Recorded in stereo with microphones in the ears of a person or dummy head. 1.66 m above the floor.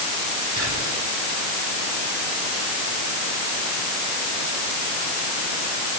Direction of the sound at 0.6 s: 85° right.